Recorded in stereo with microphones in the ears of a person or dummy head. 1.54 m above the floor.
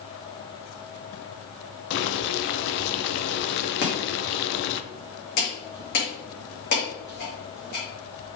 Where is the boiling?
60° left (ahead or behind), 0.7 m.